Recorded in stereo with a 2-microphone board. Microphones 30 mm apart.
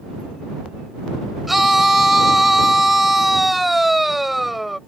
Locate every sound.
1.5 s a scream: 5° right (ahead or behind)